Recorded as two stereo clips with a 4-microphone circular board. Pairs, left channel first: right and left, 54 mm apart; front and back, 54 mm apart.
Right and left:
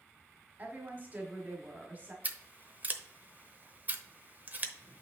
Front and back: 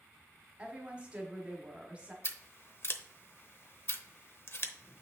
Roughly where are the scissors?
Ahead left.